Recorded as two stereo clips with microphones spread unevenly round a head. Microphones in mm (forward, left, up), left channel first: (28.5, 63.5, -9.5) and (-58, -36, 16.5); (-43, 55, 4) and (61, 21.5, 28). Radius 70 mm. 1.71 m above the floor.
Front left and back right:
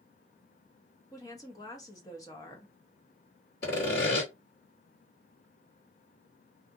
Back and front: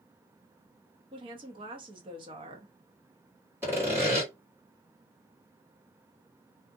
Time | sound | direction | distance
1.1 | a woman speaking | 25° right | 0.7 m
3.6 | sawing | 40° left | 1.9 m